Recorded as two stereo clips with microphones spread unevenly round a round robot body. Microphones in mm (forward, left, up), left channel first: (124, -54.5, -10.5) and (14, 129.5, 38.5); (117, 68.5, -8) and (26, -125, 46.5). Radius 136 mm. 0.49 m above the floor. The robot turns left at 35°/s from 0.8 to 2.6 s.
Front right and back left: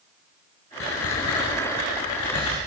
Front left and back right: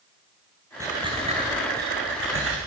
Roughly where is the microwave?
I don't hear a microwave.